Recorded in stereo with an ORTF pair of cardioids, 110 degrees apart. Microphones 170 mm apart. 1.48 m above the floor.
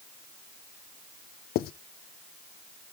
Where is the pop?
No pop in this recording.